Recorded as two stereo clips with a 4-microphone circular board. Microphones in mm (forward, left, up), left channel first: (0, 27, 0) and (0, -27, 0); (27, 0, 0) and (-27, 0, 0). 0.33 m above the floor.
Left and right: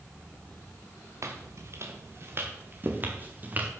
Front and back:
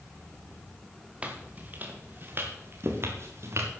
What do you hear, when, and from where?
1.2 s footsteps: 115° right, 3 m; by 3.7 s 150° right, 4.5 m